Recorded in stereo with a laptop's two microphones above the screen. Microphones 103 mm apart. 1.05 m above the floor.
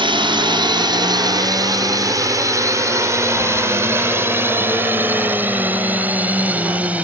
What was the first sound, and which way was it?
A drone, 50° right (ahead or behind).